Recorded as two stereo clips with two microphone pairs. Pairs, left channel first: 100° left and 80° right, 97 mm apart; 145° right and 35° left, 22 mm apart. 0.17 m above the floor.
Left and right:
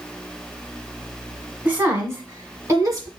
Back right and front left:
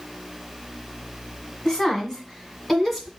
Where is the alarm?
I don't hear an alarm.